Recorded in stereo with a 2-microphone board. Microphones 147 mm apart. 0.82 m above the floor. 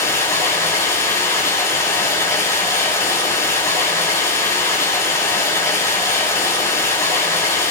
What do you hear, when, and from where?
0.0 s running water: 20° left (ahead or behind), 6 m